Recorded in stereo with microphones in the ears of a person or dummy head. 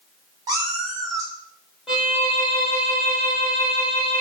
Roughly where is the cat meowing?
Centre.